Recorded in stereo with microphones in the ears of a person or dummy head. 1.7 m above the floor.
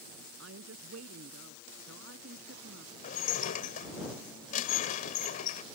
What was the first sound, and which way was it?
A woman speaking, 70° right (ahead or behind).